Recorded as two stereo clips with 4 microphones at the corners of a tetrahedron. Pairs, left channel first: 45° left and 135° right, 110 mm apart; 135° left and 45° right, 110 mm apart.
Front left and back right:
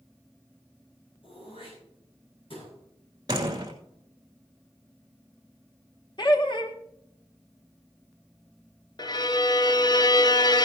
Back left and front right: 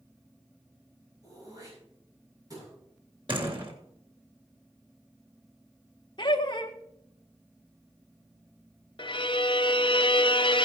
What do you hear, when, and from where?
1.2 s throat clearing: 10° left, 8 m
3.3 s a door slam: 85° right, 2.5 m
6.2 s laughter: 90° left, 1.6 m
9.0 s a violin: 95° left, 0.6 m